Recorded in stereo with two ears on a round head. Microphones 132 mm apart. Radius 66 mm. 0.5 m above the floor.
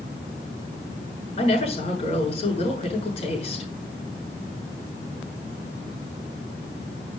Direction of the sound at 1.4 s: 45° left (ahead or behind).